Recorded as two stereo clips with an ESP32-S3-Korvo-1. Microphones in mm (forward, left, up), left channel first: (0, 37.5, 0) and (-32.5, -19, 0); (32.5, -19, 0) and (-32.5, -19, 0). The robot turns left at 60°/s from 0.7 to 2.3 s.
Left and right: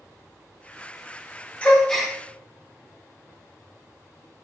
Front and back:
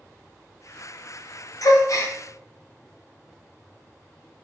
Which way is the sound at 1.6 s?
5° right.